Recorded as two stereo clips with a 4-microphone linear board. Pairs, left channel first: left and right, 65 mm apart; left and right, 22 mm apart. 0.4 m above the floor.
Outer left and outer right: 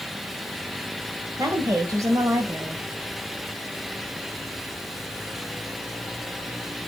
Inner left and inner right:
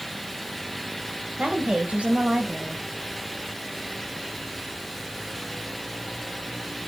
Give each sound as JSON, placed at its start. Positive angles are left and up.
{"t": 1.4, "sound": "a woman speaking", "side_deg": -55, "distance_m": 1.7}